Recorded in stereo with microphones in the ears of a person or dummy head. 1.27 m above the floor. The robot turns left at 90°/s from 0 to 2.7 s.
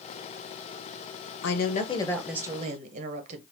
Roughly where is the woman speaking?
Left.